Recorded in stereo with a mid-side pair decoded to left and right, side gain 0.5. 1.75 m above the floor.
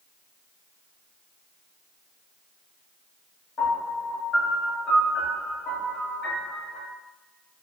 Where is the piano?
55° left, 1.8 m.